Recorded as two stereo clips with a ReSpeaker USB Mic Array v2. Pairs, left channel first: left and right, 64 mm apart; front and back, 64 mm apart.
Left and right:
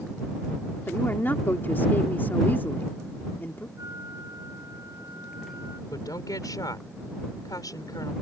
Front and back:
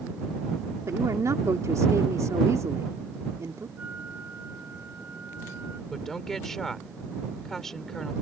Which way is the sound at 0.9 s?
145° left.